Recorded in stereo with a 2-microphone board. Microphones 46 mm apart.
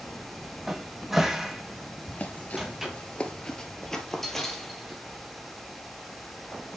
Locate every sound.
0.7 s a cupboard door: 10° right (ahead or behind), 1.1 m
2.1 s running footsteps: 35° left (ahead or behind), 1.3 m; by 5.0 s centre (ahead or behind), 2 m